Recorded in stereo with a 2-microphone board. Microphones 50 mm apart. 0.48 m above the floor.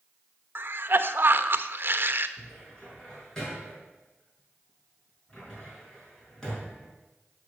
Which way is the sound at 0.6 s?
50° right (ahead or behind).